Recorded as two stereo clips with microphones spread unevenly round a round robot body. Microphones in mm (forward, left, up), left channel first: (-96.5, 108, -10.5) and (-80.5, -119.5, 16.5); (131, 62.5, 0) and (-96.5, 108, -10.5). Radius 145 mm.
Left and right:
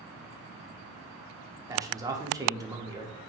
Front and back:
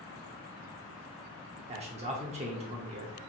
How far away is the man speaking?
About 0.7 m.